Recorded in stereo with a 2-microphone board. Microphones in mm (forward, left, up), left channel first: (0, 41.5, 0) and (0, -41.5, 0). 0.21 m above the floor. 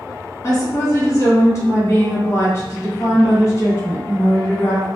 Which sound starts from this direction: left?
A woman speaking, at 0.4 s.